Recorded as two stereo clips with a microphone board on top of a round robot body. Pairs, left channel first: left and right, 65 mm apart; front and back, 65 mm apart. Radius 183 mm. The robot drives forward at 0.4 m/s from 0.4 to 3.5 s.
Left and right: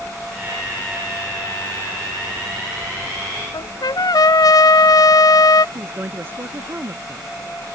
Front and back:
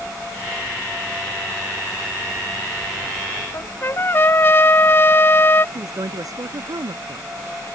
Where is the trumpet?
60° left.